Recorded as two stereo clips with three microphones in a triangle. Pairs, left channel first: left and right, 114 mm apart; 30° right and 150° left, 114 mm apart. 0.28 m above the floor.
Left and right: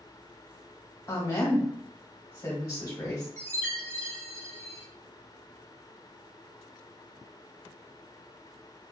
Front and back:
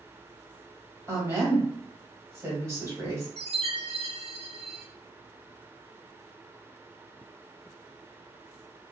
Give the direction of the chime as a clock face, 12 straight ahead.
7 o'clock.